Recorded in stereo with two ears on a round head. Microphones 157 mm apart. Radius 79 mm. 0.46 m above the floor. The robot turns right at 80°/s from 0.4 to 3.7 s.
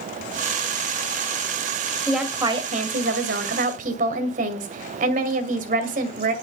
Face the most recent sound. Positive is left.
turn(degrees=-55)